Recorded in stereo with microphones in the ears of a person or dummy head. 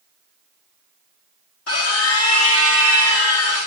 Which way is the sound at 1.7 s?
80° left.